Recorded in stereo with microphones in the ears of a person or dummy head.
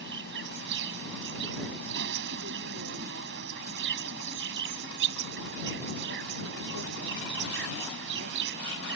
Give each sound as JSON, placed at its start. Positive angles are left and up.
{"t": 0.0, "sound": "an insect", "side_deg": -65}